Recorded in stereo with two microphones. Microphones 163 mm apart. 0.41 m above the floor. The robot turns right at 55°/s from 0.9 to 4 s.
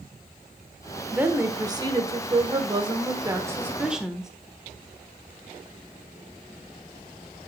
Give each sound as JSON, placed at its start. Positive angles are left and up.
{"t": 1.1, "sound": "a woman speaking", "azimuth_deg": -165, "distance_m": 1.1}